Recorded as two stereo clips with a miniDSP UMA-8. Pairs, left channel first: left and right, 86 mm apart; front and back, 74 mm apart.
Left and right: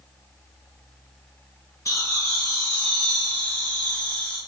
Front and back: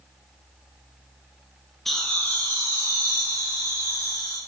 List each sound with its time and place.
1.9 s laughter: 85° left, 1.1 m; by 4.4 s 20° left, 3 m